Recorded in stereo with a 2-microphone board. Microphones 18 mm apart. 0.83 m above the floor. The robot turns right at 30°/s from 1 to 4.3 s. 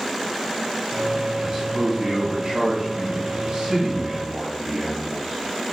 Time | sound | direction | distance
1.4 | a man speaking | 140° right | 4.5 m